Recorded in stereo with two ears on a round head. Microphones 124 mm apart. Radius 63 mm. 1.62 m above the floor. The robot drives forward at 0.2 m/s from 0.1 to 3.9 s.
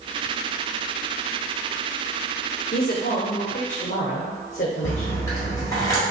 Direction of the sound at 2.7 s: 70° left (ahead or behind).